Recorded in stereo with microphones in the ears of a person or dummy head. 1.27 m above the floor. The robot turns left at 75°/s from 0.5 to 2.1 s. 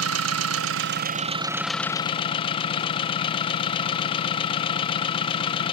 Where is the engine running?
90° right, 0.7 m; by 5.7 s 150° left, 0.7 m.